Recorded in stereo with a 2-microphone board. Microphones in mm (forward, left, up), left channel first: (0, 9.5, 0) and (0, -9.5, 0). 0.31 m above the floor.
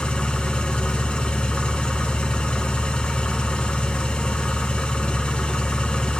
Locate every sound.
0.0 s an engine running: 85° left, 0.8 m